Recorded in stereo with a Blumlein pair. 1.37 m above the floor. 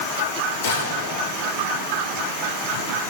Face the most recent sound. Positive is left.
turn(degrees=70)